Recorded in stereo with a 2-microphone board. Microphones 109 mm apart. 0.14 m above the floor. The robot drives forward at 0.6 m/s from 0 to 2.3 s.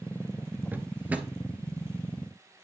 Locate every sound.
0.7 s a drawer: 15° right (ahead or behind), 0.9 m